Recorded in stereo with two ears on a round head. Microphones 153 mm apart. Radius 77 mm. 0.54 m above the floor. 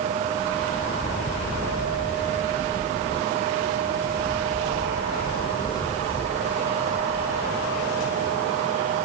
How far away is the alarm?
I don't hear an alarm.